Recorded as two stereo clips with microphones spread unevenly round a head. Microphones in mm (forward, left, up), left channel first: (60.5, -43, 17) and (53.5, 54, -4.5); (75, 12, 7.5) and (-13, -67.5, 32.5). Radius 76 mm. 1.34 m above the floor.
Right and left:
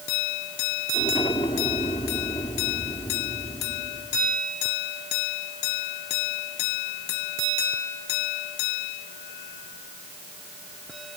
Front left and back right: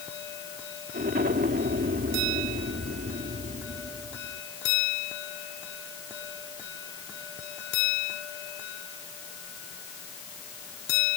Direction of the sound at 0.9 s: 140° right.